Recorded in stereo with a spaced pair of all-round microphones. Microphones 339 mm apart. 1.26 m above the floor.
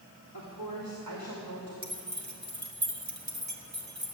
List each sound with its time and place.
0.3 s a woman speaking: 70° right (ahead or behind), 3 m; by 1.7 s 85° right, 3 m
1.8 s keys jangling: 55° right (ahead or behind), 2.0 m